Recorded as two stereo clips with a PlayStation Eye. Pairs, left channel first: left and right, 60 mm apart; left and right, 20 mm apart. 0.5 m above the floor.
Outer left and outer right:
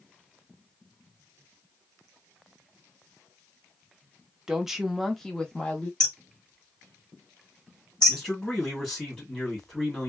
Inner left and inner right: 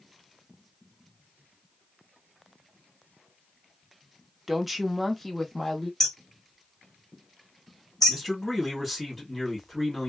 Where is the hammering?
15° left (ahead or behind), 0.9 m.